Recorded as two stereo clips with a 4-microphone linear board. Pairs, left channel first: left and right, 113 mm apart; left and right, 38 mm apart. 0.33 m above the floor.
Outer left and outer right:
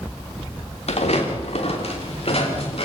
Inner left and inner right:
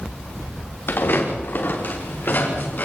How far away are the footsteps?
About 5 m.